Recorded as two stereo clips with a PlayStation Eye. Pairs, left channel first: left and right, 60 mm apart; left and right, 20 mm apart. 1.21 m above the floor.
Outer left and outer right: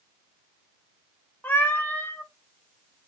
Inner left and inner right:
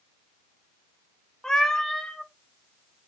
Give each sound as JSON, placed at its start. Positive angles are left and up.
{"t": 1.4, "sound": "a cat meowing", "side_deg": 30, "distance_m": 0.6}